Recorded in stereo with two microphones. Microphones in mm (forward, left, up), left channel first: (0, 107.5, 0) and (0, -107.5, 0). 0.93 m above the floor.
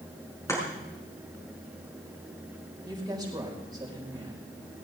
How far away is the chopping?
About 6 m.